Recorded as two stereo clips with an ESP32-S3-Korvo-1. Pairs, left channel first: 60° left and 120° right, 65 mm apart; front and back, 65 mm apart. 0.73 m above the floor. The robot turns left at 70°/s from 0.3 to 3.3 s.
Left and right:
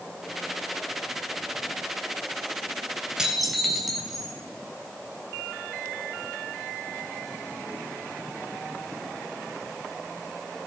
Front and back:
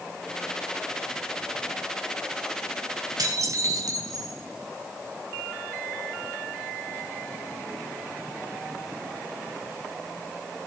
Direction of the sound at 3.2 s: 160° left.